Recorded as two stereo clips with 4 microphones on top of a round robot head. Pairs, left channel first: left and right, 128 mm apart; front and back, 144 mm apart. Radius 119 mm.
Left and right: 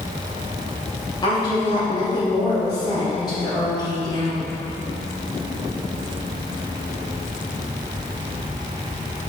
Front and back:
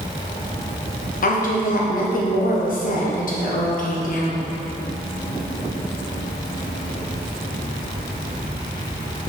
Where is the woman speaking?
25° left, 1.4 m.